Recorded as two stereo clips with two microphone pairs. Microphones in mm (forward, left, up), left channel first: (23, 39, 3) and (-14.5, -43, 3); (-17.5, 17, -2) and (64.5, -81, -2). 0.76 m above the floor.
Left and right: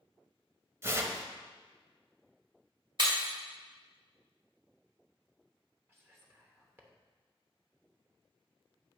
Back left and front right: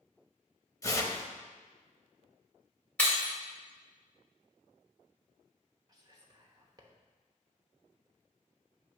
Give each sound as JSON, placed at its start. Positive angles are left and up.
{"t": 0.8, "sound": "tearing paper", "azimuth_deg": -170, "distance_m": 0.7}
{"t": 3.0, "sound": "breaking glass", "azimuth_deg": -150, "distance_m": 2.0}
{"t": 5.9, "sound": "whispering", "azimuth_deg": -75, "distance_m": 0.9}